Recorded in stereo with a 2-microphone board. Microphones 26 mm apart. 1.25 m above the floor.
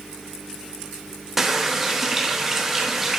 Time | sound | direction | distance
1.4 | a running tap | 15° right (ahead or behind) | 1.1 m